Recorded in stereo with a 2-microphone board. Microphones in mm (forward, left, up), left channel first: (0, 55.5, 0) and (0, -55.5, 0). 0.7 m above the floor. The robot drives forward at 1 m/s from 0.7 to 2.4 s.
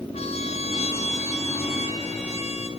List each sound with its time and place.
0.1 s a trumpet: 75° left (ahead or behind), 5 m